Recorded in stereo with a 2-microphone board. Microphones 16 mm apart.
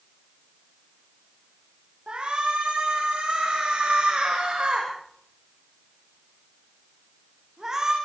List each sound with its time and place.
2.1 s a shout: 80° right, 8 m; by 7.9 s 35° right (ahead or behind), 8 m